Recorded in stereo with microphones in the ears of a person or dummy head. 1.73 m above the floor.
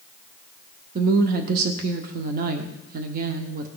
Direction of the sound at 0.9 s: 50° right (ahead or behind).